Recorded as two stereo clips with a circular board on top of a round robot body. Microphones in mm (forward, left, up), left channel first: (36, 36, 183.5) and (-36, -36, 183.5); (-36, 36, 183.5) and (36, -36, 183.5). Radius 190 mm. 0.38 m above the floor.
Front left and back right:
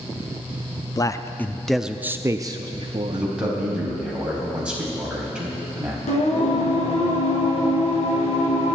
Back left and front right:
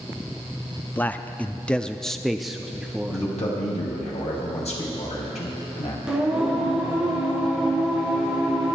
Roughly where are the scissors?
No scissors in this recording.